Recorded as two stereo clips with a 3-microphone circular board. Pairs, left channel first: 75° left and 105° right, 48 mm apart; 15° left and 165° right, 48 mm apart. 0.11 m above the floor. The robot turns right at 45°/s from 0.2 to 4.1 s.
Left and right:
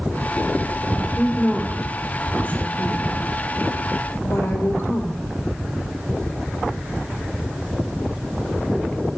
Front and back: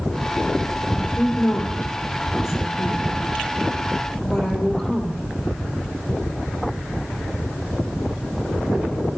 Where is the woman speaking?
50° right, 3 m; by 5.3 s 90° left, 3 m.